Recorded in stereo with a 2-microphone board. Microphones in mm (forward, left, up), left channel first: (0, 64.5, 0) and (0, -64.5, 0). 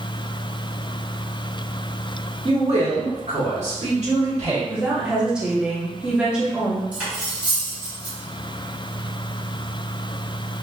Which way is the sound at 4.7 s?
10° right (ahead or behind).